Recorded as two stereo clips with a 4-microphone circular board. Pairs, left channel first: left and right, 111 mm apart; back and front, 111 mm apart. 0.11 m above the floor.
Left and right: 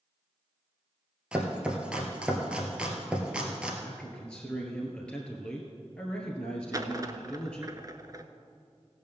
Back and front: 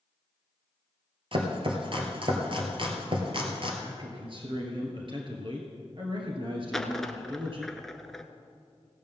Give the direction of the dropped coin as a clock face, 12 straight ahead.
3 o'clock.